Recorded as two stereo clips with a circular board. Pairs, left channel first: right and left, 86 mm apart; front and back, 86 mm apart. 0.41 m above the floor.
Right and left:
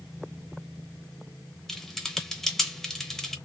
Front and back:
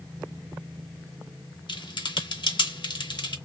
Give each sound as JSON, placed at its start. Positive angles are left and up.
{"t": 1.7, "sound": "typing on a keyboard", "azimuth_deg": -5, "distance_m": 0.7}